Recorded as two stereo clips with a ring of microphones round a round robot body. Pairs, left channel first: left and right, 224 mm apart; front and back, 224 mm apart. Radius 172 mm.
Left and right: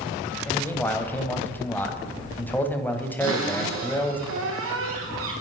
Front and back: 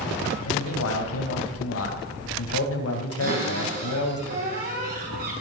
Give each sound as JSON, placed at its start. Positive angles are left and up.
{"t": 0.5, "sound": "a man speaking", "azimuth_deg": 10, "distance_m": 3.0}
{"t": 3.2, "sound": "a cupboard door", "azimuth_deg": -120, "distance_m": 4.5}